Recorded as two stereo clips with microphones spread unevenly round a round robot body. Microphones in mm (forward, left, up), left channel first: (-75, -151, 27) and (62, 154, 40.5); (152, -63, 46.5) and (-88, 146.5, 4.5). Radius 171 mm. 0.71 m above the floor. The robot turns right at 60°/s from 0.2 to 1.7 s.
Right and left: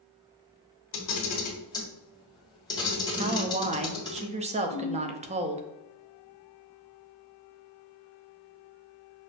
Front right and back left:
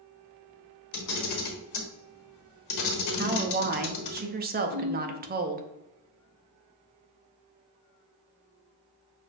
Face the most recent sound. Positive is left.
turn(degrees=110)